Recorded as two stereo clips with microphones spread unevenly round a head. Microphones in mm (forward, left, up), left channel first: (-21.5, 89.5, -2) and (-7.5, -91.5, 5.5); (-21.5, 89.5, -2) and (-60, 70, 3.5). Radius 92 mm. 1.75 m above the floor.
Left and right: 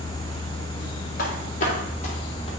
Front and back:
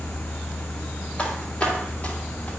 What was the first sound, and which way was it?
Footsteps, 90° left.